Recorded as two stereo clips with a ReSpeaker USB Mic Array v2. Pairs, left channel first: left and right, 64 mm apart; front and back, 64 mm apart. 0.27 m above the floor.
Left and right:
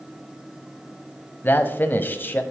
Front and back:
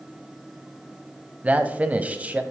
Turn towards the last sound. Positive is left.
turn(degrees=125)